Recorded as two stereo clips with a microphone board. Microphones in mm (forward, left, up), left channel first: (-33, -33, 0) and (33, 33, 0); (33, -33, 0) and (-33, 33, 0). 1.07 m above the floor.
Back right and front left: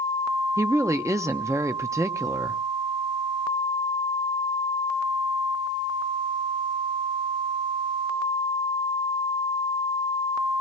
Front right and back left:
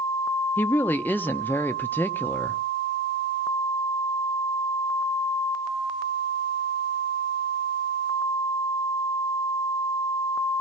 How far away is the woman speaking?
About 0.8 m.